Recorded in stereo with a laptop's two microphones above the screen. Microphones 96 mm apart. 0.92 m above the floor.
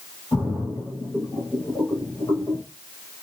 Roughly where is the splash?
Left.